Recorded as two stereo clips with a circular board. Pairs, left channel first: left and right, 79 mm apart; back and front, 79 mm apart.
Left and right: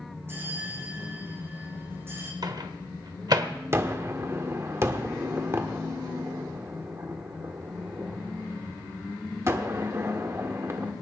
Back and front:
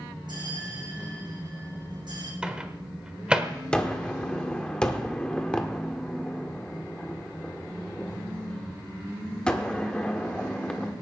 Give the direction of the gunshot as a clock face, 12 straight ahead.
4 o'clock.